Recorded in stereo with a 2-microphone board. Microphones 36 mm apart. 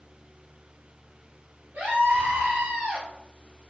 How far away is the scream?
About 1.6 m.